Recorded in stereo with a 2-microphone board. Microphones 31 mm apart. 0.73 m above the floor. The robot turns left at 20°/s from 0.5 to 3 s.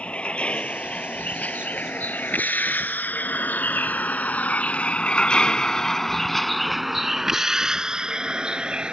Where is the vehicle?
40° left (ahead or behind); by 8.9 s 35° right (ahead or behind).